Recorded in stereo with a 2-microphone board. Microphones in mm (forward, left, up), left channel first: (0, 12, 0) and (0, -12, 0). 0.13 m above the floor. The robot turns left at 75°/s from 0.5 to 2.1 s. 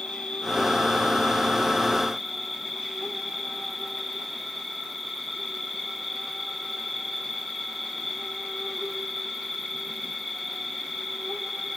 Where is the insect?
115° left, 1.7 m; by 11.8 s 5° right, 1.7 m.